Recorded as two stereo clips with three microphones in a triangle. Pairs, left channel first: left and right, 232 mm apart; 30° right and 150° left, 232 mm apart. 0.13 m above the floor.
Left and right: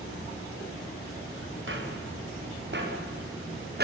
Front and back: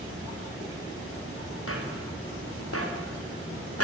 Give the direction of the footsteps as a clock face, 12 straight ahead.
2 o'clock.